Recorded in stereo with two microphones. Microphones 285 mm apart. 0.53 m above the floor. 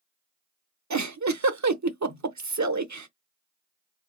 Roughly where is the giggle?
Right.